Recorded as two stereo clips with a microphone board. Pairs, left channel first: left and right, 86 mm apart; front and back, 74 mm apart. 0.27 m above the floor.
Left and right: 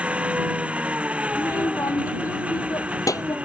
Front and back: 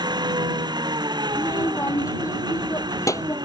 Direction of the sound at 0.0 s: 165° right.